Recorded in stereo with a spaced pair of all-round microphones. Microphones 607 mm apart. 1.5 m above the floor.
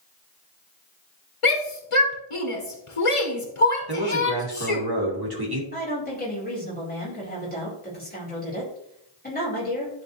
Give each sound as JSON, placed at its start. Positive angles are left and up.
{"t": 1.4, "sound": "a shout", "side_deg": 55, "distance_m": 1.2}
{"t": 3.9, "sound": "a man speaking", "side_deg": -40, "distance_m": 2.5}
{"t": 5.7, "sound": "a woman speaking", "side_deg": 15, "distance_m": 4.0}